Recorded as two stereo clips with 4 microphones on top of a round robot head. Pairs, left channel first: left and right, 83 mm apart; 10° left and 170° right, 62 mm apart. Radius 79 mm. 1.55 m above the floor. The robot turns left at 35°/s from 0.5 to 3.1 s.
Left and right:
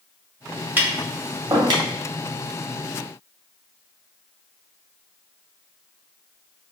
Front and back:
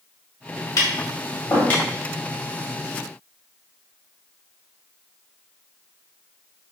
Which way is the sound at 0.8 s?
20° right.